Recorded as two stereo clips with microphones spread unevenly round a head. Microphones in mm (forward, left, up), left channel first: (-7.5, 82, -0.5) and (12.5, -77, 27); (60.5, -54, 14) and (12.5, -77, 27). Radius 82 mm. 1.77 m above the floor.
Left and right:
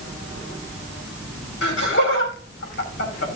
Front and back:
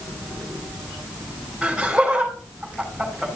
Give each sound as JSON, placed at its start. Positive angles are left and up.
{"t": 1.6, "sound": "laughter", "azimuth_deg": 120, "distance_m": 5.0}